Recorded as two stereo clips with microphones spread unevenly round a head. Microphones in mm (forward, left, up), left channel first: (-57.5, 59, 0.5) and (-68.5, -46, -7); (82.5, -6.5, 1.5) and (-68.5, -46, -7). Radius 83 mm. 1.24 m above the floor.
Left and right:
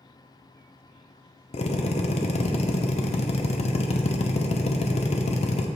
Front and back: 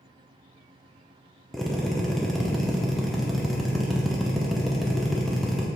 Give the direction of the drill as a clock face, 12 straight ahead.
9 o'clock.